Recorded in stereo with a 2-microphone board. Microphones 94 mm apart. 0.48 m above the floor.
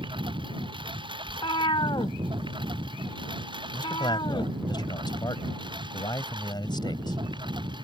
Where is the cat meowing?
75° left (ahead or behind).